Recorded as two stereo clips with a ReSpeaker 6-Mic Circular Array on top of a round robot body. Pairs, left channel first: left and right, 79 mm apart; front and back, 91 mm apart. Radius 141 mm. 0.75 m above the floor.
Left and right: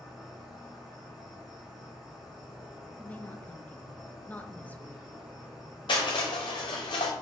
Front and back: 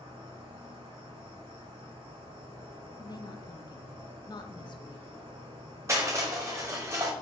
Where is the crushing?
120° left, 0.7 m.